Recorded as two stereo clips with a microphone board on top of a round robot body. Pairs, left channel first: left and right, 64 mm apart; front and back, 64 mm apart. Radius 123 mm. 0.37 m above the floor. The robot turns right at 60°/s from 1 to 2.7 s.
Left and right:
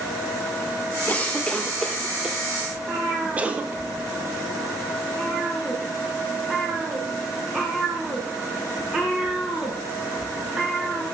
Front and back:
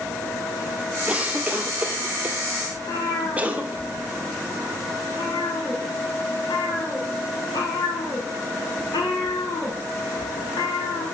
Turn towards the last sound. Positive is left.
turn(degrees=-15)